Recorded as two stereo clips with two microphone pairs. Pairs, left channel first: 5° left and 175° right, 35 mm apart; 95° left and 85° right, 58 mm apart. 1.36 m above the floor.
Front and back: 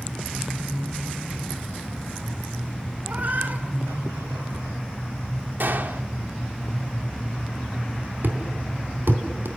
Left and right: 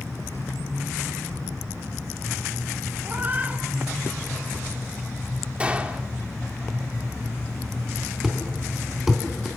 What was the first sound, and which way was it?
A cat meowing, 140° right.